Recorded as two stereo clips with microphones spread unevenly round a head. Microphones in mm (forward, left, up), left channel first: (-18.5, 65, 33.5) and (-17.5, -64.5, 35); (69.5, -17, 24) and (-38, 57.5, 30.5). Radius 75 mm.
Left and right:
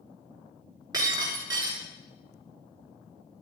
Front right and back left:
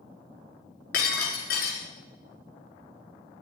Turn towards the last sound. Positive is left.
turn(degrees=-25)